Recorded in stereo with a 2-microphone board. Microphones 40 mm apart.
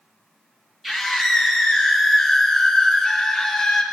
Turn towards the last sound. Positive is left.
turn(degrees=15)  # may be behind; listen again after turning